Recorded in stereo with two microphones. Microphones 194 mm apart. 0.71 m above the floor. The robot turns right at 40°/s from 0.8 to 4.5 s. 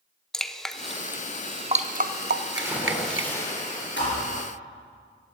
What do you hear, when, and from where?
0.3 s dripping: centre (ahead or behind), 0.6 m; by 3.3 s 80° right, 0.6 m
2.5 s a splash: 20° right, 3 m; by 3.9 s 35° left, 3 m
4.0 s a thud: 70° left (ahead or behind), 4.5 m; by 4.3 s 85° left, 4.5 m